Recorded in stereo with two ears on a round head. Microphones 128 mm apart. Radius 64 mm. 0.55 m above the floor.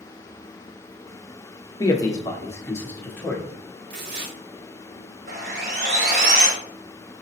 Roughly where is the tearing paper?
Right.